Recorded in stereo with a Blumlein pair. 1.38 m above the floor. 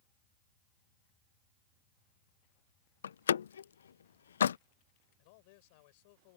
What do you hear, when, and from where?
3.0 s a door slam: 65° left
5.2 s a man speaking: 50° left